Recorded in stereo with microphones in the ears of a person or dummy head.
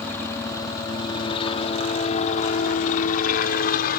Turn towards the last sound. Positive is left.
turn(degrees=55)  # may be behind; listen again after turning